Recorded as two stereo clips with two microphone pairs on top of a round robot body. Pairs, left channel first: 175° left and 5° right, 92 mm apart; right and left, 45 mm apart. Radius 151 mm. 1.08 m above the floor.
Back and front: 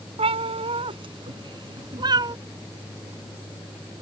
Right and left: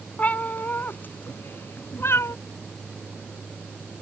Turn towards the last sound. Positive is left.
turn(degrees=-55)